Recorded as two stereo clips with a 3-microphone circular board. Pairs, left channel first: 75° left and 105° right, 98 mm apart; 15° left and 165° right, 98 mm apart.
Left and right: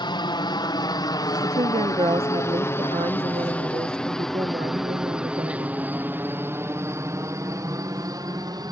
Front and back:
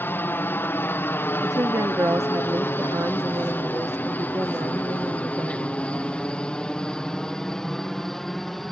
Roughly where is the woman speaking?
Right.